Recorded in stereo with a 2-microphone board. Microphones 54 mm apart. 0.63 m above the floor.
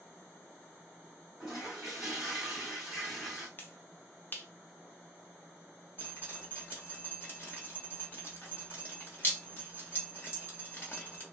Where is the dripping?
40° left (ahead or behind), 1.1 m.